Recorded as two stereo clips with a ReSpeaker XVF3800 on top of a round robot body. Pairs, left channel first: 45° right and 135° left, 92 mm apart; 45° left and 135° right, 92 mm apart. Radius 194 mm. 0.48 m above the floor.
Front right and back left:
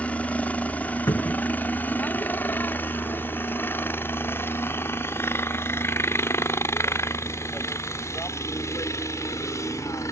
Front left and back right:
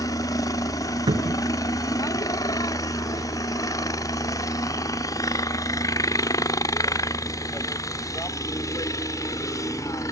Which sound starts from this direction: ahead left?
A helicopter, at 0.0 s.